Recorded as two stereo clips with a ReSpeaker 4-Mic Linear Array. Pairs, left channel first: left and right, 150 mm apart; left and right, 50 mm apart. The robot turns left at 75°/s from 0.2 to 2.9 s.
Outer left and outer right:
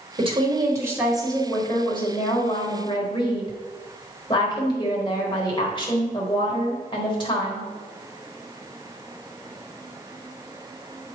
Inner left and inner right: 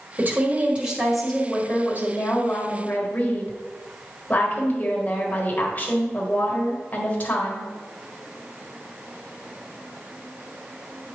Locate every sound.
0.2 s a woman speaking: 105° right, 1.5 m; by 7.7 s 50° left, 1.5 m